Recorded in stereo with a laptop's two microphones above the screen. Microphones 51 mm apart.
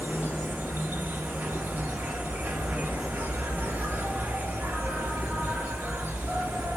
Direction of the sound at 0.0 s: 40° right (ahead or behind).